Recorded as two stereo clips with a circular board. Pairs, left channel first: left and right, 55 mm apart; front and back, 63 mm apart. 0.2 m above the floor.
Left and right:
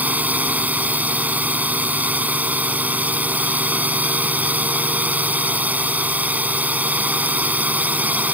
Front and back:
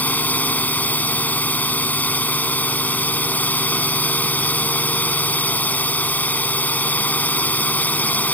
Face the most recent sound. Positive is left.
turn(degrees=-45)